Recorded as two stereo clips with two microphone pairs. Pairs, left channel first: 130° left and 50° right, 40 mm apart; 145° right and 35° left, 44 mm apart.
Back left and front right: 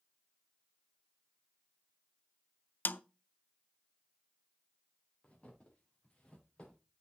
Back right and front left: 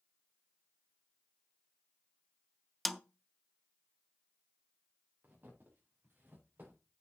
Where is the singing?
I don't hear singing.